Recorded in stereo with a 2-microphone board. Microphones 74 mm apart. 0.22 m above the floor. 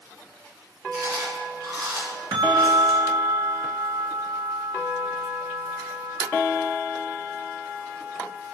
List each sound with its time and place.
0.9 s chewing: 60° right (ahead or behind), 2.5 m
2.3 s a bell: 65° right (ahead or behind), 0.6 m